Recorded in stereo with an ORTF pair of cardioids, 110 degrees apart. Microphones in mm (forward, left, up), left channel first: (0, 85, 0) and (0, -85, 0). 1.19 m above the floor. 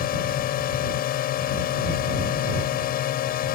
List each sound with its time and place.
0.0 s a drone: 70° left